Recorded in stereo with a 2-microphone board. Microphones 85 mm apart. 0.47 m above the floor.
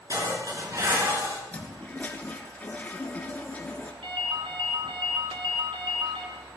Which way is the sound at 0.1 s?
45° right (ahead or behind).